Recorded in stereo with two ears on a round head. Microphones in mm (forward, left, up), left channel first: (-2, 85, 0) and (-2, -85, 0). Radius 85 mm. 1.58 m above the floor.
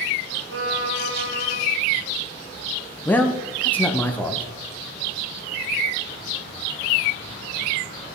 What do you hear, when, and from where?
0.5 s a violin: 70° right (ahead or behind), 1.2 m
3.0 s a man speaking: 10° left (ahead or behind), 0.8 m